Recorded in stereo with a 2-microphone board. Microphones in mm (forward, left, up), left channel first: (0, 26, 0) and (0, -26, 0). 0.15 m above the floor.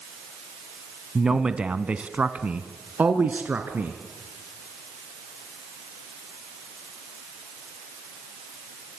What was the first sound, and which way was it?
A man speaking, 10° right (ahead or behind).